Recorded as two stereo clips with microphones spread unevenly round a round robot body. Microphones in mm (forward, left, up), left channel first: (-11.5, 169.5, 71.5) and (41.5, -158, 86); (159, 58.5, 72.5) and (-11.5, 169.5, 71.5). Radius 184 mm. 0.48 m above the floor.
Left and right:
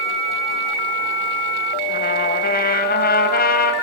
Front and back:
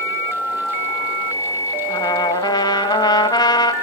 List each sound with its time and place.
1.9 s a trumpet: 35° left, 2.5 m